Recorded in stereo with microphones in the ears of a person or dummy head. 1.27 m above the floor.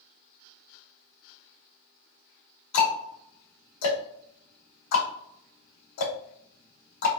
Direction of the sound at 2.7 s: 80° left.